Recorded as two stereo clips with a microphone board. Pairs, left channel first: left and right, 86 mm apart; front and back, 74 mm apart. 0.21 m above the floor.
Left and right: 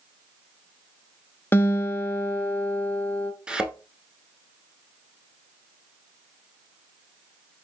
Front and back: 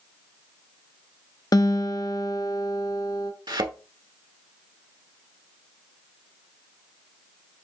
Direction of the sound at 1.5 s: 25° left.